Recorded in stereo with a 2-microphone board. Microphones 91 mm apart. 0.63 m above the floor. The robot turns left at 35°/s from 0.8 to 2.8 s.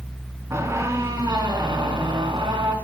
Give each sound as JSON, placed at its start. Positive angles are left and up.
{"t": 0.5, "sound": "a squeak", "azimuth_deg": -35, "distance_m": 3.5}